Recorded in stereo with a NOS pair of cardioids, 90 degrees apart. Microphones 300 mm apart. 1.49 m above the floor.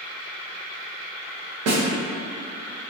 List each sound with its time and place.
1.7 s a snare drum: 60° right, 0.7 m